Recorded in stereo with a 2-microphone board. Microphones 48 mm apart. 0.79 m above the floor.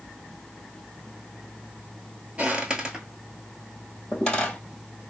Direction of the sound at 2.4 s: 25° right (ahead or behind).